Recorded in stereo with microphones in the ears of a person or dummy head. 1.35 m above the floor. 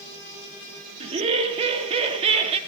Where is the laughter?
35° right (ahead or behind), 2.5 m.